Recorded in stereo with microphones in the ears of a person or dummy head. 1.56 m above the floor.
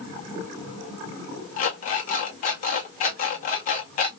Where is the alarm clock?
45° left (ahead or behind), 0.8 m.